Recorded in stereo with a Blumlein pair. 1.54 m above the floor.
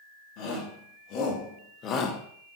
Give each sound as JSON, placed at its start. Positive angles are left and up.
{"t": 0.4, "sound": "a shout", "azimuth_deg": 40, "distance_m": 4.0}